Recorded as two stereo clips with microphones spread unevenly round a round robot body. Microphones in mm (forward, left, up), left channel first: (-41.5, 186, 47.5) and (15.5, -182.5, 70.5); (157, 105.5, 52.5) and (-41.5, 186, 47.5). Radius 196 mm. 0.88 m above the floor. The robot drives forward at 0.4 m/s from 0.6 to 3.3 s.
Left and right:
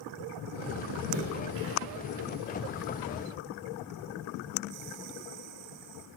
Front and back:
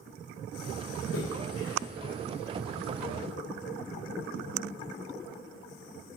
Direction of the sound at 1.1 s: 65° right.